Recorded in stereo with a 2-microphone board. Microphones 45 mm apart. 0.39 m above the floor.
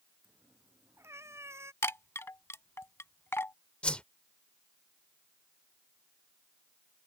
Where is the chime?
75° left (ahead or behind).